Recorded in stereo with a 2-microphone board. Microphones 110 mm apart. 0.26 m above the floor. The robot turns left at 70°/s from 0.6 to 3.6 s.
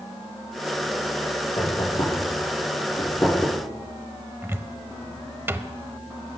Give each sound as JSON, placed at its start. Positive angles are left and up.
{"t": 1.6, "sound": "knocking", "side_deg": 35, "distance_m": 4.5}
{"t": 4.4, "sound": "a cupboard door", "side_deg": -20, "distance_m": 0.6}